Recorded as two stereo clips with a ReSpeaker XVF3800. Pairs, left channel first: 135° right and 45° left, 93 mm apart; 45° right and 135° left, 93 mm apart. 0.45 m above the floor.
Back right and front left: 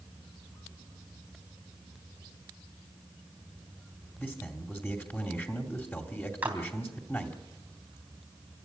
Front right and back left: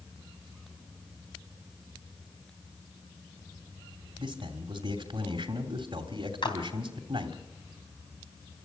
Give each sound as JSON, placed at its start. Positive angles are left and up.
{"t": 4.2, "sound": "a man speaking", "azimuth_deg": 160, "distance_m": 2.5}
{"t": 6.4, "sound": "a clap", "azimuth_deg": -25, "distance_m": 3.5}